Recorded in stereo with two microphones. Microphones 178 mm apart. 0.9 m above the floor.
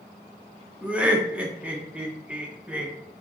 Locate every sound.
0.8 s laughter: 5° right (ahead or behind), 0.7 m